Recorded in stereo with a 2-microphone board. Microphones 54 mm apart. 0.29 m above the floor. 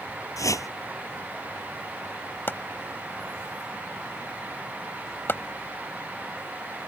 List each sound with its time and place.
0.4 s a whoosh: 75° left (ahead or behind)
2.5 s chopping: 40° left (ahead or behind)